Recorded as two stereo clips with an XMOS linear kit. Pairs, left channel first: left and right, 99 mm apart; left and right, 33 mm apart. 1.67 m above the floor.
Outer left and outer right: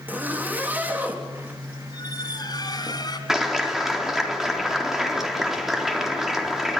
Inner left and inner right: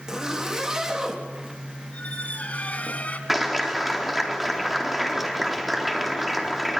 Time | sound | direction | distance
0.1 | a zipper | 20° right (ahead or behind) | 3.5 m
1.9 | a squeak | 45° left (ahead or behind) | 2.5 m
3.3 | a clap | 5° right (ahead or behind) | 4 m